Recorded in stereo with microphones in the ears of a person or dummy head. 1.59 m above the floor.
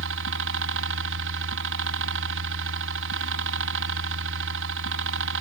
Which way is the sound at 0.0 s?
65° right (ahead or behind).